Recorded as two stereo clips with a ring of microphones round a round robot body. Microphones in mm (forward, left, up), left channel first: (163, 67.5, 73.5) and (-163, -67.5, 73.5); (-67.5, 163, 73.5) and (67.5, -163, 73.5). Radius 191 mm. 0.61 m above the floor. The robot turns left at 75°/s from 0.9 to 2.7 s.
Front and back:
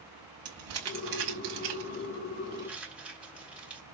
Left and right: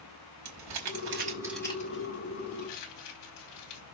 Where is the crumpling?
110° right, 6 m; by 3.8 s 115° left, 6 m.